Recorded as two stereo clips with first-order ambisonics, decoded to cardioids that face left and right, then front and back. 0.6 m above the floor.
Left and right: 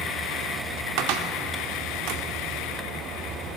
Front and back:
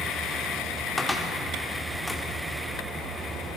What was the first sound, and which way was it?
A cupboard door, 85° right.